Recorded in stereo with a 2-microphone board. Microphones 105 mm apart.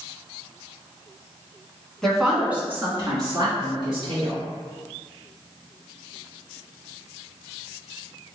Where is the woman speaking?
5° left (ahead or behind), 1.9 m; by 4.4 s 55° right (ahead or behind), 3.5 m.